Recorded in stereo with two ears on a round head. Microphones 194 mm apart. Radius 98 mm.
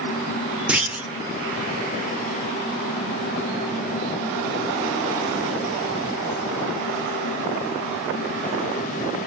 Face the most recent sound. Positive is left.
turn(degrees=-5)  # may be behind; listen again after turning